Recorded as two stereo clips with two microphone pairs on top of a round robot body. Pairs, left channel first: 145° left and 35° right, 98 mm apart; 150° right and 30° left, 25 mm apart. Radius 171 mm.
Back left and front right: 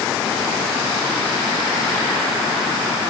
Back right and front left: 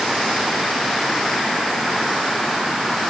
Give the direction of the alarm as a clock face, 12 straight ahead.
No alarm in this recording.